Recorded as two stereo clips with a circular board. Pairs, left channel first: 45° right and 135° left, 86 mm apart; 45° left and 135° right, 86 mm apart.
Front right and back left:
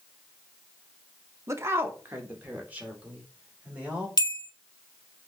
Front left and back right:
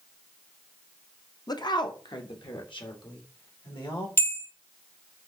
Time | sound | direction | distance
1.5 | a woman speaking | 80° left | 0.6 m
4.2 | a bell | 10° right | 0.6 m